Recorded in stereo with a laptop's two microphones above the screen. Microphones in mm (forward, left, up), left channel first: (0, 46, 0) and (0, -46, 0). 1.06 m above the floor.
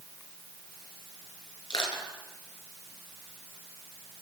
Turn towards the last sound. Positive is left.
turn(degrees=55)  # may be behind; listen again after turning